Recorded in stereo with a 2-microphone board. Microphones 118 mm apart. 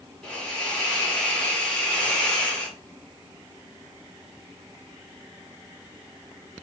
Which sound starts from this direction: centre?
A hiss, at 0.2 s.